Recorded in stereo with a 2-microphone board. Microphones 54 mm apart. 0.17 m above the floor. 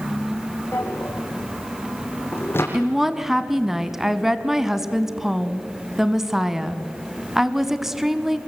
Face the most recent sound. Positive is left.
turn(degrees=-10)  # may be behind; listen again after turning